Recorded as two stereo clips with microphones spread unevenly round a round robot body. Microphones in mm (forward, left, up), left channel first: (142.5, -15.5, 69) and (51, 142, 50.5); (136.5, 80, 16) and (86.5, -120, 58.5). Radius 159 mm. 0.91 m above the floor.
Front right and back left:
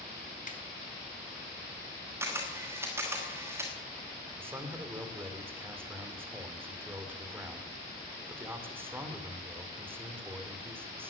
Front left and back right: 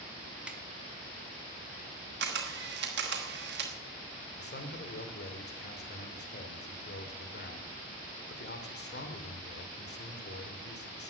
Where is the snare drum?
15° right, 2.5 m.